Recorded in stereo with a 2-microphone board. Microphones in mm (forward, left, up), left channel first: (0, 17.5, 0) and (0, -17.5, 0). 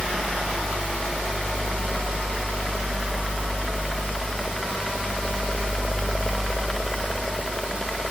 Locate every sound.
Only background noise.